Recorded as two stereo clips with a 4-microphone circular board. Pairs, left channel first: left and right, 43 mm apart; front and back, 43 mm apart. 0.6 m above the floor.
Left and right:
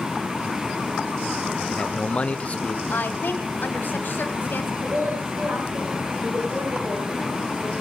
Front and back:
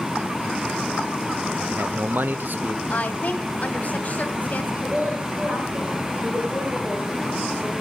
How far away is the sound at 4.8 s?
About 9.5 m.